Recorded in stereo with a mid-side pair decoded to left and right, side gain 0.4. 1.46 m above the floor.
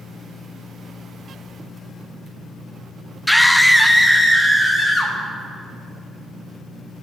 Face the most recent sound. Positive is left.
turn(degrees=15)